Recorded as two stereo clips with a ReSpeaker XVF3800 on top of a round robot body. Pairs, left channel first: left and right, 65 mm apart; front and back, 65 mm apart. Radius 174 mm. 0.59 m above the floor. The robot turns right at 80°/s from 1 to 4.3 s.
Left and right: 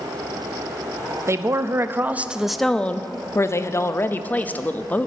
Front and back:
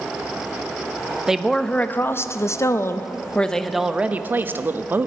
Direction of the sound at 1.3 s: 100° right.